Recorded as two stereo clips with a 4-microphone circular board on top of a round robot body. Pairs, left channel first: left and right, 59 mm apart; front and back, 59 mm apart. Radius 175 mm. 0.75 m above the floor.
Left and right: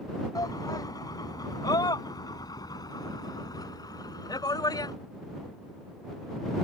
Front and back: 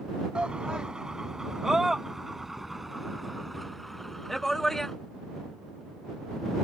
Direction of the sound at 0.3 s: 105° left.